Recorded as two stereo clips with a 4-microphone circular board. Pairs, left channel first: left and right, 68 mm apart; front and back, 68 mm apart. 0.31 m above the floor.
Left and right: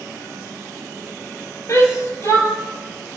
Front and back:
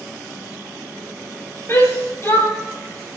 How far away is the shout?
About 6.5 m.